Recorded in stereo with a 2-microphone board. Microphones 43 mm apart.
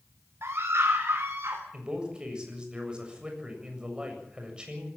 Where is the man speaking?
20° right (ahead or behind), 7 m.